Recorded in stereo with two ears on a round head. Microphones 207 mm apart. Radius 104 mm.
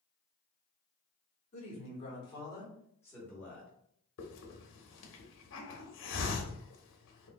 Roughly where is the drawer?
I don't hear a drawer.